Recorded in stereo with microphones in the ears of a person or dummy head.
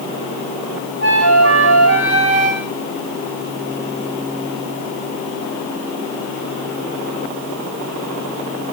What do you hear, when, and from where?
1.0 s a flute: 55° right (ahead or behind), 1.5 m